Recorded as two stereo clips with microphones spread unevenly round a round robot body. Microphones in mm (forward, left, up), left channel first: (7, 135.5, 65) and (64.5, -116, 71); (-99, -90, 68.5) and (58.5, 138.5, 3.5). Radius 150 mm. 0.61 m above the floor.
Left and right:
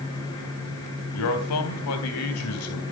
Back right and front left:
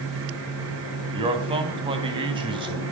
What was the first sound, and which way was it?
A man speaking, 125° left.